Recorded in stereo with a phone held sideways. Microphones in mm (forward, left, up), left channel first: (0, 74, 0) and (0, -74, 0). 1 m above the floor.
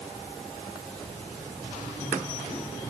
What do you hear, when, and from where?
Only background noise.